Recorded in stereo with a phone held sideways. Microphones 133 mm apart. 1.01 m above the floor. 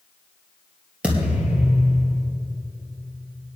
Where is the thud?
10° right (ahead or behind), 3 m.